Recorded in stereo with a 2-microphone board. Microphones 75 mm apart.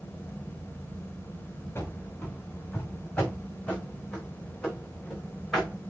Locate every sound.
1.8 s running footsteps: 30° left (ahead or behind), 4 m; by 5.7 s centre (ahead or behind), 4.5 m